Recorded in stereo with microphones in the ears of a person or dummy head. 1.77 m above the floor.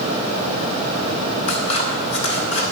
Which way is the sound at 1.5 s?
35° left (ahead or behind).